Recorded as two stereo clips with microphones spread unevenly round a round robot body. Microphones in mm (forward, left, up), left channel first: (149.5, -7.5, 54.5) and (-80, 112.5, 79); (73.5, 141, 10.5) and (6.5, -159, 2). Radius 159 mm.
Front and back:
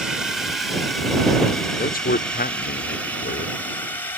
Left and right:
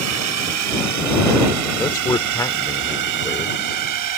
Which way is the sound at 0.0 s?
115° right.